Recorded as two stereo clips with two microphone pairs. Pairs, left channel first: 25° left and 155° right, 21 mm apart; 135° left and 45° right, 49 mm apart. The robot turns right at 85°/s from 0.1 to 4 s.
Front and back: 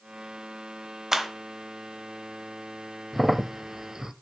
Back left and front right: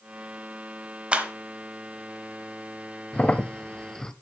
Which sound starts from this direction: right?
A clap, at 1.1 s.